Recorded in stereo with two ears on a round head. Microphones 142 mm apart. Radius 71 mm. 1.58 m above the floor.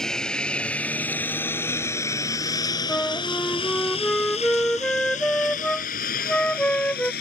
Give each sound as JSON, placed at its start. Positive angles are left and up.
{"t": 0.0, "sound": "a lawn mower", "side_deg": 5}
{"t": 2.9, "sound": "a flute", "side_deg": 5}